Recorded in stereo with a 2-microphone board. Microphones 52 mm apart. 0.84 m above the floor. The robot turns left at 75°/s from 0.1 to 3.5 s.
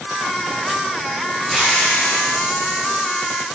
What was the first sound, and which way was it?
A hiss, 170° left.